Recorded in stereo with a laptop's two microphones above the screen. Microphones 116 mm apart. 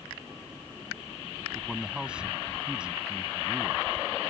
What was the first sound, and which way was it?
A man speaking, 5° right (ahead or behind).